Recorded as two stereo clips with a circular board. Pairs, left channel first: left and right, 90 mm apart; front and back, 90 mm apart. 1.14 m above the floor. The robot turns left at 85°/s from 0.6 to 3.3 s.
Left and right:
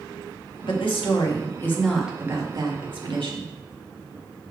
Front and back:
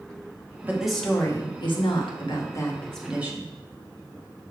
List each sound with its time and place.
0.6 s a woman speaking: 115° left, 1.6 m; by 3.5 s 115° right, 1.6 m